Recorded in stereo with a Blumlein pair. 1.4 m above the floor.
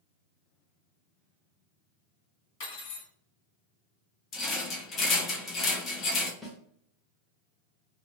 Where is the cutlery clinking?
50° left, 1.4 m.